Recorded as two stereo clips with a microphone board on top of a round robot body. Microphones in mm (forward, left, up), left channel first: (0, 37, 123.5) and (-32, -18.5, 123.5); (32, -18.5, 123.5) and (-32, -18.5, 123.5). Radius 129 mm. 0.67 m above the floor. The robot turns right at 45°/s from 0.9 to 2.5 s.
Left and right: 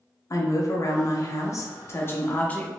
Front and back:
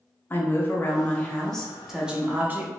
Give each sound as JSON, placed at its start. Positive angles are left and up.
{"t": 0.3, "sound": "a woman speaking", "azimuth_deg": 50, "distance_m": 1.0}